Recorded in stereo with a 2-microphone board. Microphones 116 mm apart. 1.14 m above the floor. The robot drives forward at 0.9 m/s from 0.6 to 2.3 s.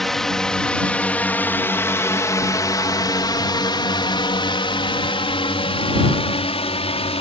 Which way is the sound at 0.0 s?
Centre (ahead or behind).